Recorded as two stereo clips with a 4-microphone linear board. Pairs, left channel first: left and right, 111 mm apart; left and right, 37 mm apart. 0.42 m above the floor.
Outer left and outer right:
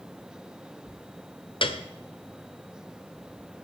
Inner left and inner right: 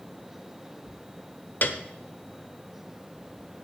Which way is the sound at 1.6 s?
50° left (ahead or behind).